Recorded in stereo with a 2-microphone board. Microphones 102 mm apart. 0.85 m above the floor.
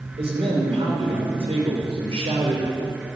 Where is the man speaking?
65° right (ahead or behind), 2.5 m.